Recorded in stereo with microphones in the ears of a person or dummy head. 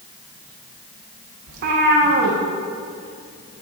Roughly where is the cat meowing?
Right.